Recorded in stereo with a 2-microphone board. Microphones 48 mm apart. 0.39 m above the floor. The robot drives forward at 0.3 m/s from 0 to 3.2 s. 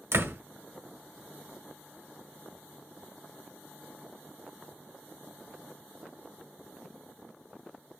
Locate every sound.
0.1 s a door slam: 60° right (ahead or behind), 1.3 m